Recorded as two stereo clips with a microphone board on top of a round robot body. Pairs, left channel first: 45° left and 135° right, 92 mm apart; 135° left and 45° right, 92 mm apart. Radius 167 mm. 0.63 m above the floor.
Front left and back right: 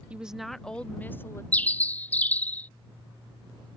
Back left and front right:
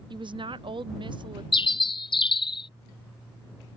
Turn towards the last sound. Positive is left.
turn(degrees=115)